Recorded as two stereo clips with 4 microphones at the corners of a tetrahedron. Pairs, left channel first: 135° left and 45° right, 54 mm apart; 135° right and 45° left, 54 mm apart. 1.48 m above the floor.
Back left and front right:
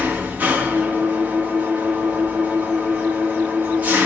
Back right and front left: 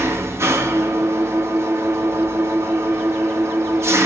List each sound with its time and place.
0.0 s an engine running: 15° left, 1.6 m